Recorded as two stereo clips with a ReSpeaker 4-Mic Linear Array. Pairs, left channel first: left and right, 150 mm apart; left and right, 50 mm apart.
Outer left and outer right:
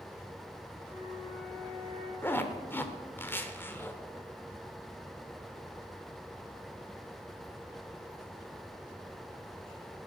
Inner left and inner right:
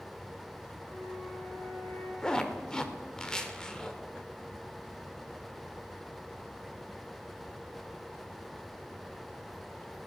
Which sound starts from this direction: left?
A flute, at 0.8 s.